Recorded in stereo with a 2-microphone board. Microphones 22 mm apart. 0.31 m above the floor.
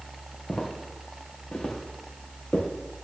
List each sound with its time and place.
0.5 s footsteps: 45° left (ahead or behind), 5 m; by 2.7 s 55° left (ahead or behind), 4 m